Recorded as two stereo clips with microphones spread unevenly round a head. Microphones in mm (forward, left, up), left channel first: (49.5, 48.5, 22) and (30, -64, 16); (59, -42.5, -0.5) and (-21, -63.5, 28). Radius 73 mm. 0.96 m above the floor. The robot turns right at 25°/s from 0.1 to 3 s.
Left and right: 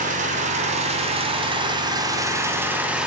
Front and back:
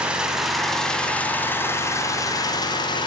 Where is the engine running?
90° right, 2 m; by 3.1 s 20° right, 2 m.